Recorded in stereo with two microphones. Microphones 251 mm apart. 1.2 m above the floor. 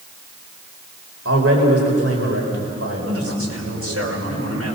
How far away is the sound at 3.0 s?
About 5.5 m.